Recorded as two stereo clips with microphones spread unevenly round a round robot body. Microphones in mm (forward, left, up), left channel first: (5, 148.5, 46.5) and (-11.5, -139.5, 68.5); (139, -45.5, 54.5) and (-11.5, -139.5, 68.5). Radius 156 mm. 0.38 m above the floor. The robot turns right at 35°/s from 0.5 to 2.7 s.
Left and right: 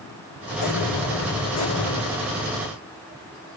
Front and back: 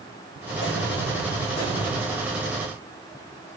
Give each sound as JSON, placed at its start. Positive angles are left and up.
{"t": 0.6, "sound": "an explosion", "azimuth_deg": 65, "distance_m": 5.5}